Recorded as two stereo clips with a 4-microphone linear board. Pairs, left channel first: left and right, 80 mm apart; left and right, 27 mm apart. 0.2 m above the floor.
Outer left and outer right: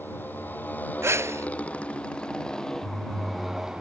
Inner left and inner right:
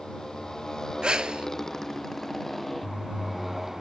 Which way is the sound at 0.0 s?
25° left (ahead or behind).